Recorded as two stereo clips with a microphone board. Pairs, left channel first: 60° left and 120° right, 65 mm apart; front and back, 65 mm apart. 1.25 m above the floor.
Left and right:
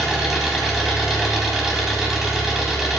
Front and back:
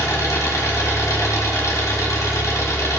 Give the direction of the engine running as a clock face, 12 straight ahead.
1 o'clock.